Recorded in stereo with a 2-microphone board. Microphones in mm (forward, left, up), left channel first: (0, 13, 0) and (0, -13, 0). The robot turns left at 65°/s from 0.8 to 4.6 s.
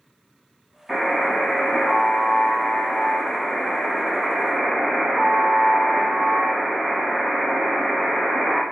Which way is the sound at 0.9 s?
170° right.